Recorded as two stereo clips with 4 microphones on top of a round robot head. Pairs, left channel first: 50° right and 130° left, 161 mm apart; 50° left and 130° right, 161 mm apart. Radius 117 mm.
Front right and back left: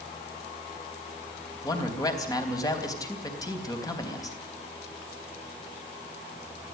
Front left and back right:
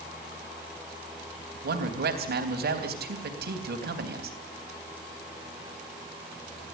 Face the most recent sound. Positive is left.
turn(degrees=-115)